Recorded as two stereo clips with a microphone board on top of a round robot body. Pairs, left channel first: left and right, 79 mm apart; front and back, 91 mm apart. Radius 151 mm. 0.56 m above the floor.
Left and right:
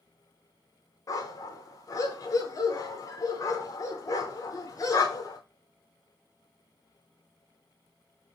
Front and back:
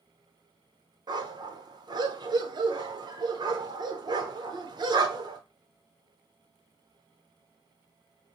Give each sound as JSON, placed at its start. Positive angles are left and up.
{"t": 1.1, "sound": "a dog barking", "azimuth_deg": 140, "distance_m": 0.8}